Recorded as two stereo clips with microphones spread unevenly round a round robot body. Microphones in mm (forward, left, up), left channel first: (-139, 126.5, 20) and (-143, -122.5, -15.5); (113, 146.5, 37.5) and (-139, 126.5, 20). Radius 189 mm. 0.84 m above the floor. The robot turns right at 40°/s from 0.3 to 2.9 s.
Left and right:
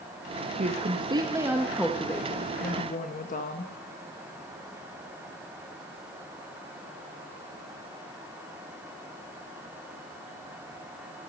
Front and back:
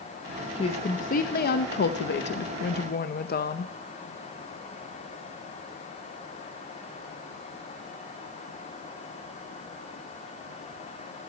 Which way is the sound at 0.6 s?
60° right.